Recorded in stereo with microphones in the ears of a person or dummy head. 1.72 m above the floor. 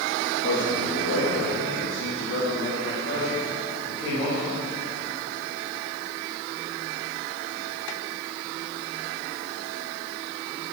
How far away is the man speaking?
About 3 m.